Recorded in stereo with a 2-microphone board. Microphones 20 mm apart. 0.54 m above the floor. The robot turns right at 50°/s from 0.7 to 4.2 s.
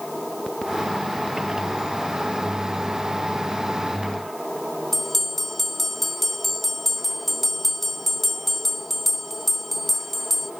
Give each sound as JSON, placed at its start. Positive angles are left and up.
{"t": 4.9, "sound": "a bell", "side_deg": 10, "distance_m": 1.6}